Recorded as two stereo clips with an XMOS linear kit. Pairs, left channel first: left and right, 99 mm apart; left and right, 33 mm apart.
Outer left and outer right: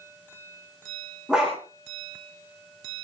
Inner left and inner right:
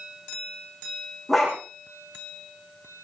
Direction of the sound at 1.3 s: 5° right (ahead or behind).